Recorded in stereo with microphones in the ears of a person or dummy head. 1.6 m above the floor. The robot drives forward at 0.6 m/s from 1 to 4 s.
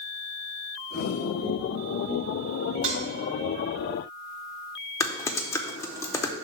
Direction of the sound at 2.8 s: 25° right (ahead or behind).